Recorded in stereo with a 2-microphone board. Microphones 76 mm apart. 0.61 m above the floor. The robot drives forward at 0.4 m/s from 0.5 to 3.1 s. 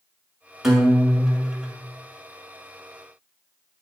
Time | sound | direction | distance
0.6 | a guitar | 5° right (ahead or behind) | 2 m